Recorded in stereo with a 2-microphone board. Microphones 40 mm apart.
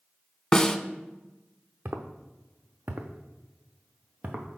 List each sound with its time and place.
0.5 s a snare drum: 20° left (ahead or behind), 0.5 m
1.9 s footsteps: 75° right (ahead or behind), 1.0 m; by 4.5 s 40° right (ahead or behind), 1.6 m